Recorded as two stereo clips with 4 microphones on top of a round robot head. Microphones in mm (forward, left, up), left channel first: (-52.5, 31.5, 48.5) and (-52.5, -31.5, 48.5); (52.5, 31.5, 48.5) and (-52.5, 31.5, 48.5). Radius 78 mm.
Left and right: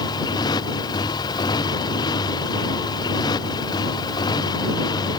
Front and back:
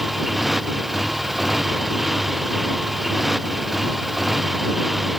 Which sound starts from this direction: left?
A motorcycle, at 0.0 s.